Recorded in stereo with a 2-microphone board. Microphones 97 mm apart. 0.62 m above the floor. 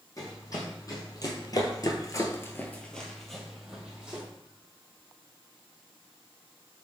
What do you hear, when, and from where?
0.2 s running footsteps: 35° left (ahead or behind), 1.7 m; by 4.2 s 10° right (ahead or behind), 1.6 m